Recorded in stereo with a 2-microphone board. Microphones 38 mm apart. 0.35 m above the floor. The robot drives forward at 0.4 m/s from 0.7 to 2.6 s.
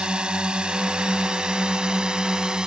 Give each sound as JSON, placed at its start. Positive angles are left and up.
{"t": 0.0, "sound": "a drone", "side_deg": -25}